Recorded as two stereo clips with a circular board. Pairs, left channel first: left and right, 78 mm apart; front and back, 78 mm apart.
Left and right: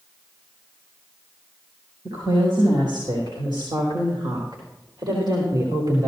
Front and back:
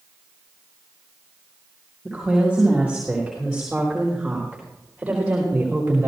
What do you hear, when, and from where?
2.0 s a woman speaking: 95° right, 6.5 m; by 6.1 s 115° right, 2.5 m